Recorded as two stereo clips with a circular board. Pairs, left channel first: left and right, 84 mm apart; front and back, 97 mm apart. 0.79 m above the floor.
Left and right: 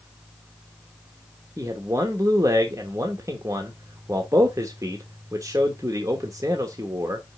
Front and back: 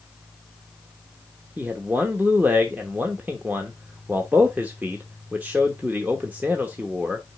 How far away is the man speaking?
About 1.0 m.